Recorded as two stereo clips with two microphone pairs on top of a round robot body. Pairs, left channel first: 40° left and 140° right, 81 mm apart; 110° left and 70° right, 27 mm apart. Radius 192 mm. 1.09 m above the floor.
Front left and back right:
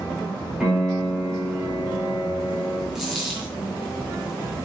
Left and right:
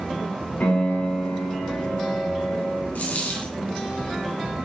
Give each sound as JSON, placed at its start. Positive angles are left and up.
{"t": 0.6, "sound": "a piano", "azimuth_deg": 140, "distance_m": 5.0}
{"t": 3.0, "sound": "a dropped coin", "azimuth_deg": 135, "distance_m": 3.0}